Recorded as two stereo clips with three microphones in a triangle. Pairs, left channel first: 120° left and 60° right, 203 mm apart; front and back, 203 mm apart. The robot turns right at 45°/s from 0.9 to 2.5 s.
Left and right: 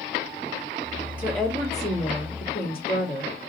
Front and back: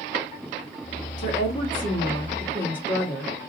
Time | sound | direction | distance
1.2 | a woman speaking | 20° left | 1.8 m